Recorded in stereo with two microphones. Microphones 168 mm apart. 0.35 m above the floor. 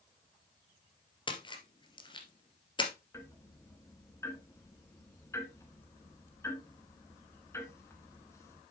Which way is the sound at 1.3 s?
30° left (ahead or behind).